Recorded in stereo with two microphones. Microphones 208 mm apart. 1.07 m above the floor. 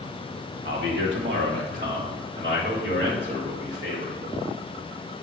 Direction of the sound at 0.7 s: 55° right (ahead or behind).